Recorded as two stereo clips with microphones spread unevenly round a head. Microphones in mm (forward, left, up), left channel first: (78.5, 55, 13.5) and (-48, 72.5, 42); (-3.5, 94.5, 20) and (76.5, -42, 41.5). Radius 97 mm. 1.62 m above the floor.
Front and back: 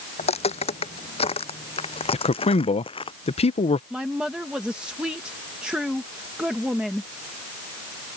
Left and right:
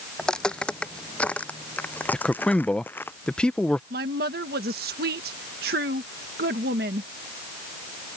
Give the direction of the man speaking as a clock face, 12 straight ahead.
11 o'clock.